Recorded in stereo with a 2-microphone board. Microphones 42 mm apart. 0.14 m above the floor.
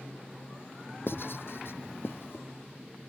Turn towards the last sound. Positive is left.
turn(degrees=65)  # may be behind; listen again after turning